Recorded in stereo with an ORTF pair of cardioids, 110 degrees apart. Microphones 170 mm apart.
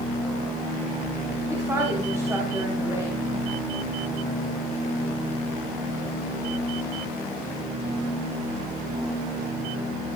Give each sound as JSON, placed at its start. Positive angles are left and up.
{"t": 1.5, "sound": "a woman speaking", "azimuth_deg": -20, "distance_m": 9.0}